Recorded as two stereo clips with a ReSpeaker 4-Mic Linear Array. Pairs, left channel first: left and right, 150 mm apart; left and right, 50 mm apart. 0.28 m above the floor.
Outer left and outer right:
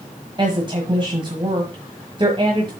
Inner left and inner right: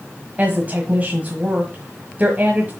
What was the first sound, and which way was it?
A woman speaking, 35° right (ahead or behind).